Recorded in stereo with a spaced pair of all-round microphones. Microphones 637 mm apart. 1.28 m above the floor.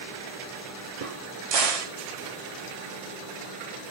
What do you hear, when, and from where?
1.0 s a crack: 60° right (ahead or behind), 0.7 m